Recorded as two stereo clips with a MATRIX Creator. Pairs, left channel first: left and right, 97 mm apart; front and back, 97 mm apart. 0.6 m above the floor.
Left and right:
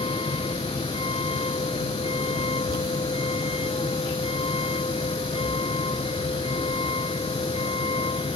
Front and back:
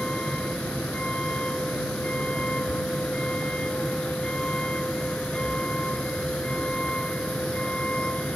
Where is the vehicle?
80° left.